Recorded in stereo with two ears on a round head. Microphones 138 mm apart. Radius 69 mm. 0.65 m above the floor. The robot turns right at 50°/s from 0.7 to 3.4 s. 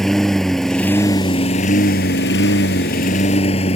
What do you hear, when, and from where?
0.0 s a lawn mower: 5° left; by 3.8 s 140° left